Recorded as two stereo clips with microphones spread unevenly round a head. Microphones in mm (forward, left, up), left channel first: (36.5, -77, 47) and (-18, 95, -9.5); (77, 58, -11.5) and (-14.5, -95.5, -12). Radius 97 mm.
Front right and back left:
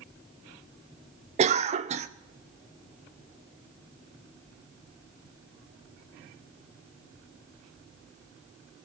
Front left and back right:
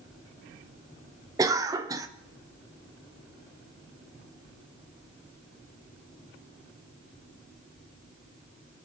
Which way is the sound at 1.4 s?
165° left.